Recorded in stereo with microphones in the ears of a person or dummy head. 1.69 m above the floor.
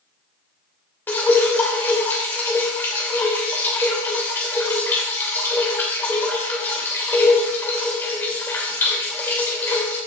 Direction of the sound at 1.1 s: 10° left (ahead or behind).